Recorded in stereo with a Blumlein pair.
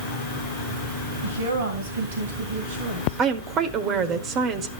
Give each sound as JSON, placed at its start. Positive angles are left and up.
{"t": 1.2, "sound": "a woman speaking", "azimuth_deg": -65, "distance_m": 1.6}
{"t": 3.2, "sound": "a woman speaking", "azimuth_deg": -30, "distance_m": 1.1}